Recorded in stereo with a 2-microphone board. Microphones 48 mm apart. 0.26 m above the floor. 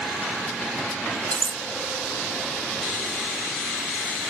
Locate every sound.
1.3 s cutlery clinking: 25° left (ahead or behind), 0.6 m